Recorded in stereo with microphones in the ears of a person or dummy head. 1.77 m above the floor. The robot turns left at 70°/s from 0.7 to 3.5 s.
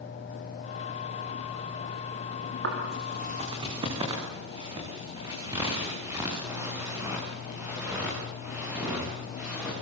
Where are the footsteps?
75° right (ahead or behind), 8 m; by 9.7 s 5° right (ahead or behind), 11 m.